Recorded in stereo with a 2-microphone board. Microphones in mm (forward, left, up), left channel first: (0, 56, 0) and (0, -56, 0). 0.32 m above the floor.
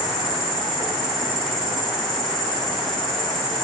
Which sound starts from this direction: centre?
An insect, at 0.0 s.